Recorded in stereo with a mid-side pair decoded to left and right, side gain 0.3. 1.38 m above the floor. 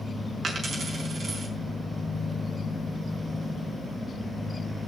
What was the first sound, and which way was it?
A dropped coin, 60° right.